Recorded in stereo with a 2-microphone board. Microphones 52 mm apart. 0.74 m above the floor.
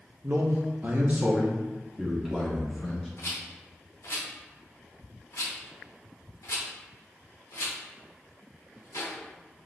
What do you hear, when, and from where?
0.2 s a man speaking: 45° right (ahead or behind), 0.6 m; by 3.1 s 5° right (ahead or behind), 1.5 m
3.2 s a rattle: 75° left (ahead or behind), 0.9 m